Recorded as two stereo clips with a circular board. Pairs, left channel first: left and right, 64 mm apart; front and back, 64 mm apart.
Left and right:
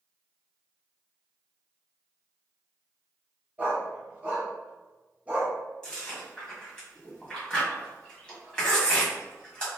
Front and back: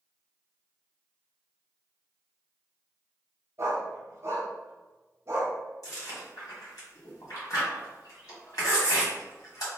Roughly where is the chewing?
Ahead.